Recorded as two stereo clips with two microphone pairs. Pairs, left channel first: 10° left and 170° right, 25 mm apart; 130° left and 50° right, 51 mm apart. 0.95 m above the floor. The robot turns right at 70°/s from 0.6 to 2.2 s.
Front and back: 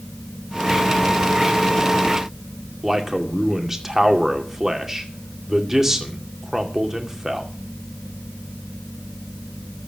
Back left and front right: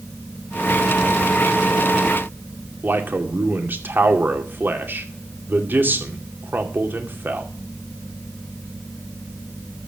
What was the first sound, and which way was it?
A man speaking, 95° right.